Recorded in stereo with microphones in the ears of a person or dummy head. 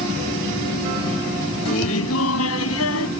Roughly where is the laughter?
Left.